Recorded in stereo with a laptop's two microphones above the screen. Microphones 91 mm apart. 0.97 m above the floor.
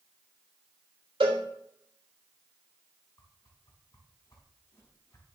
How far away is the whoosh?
About 3.5 m.